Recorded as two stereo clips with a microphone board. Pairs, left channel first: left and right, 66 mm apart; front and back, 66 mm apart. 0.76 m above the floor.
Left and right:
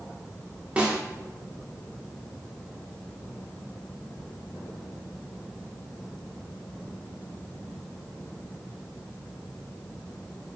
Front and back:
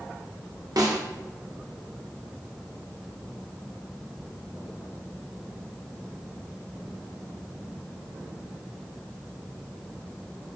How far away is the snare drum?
About 0.6 m.